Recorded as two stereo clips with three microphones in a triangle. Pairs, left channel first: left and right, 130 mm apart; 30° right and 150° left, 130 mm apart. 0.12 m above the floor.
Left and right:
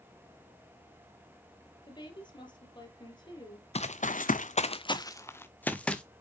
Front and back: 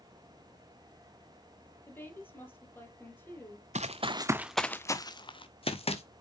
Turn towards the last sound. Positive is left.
turn(degrees=5)